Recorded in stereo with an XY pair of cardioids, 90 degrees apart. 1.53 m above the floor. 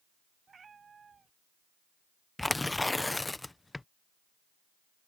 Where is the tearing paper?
15° left.